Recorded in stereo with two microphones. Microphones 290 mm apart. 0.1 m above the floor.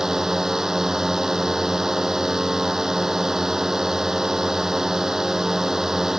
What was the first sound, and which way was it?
A drone, centre (ahead or behind).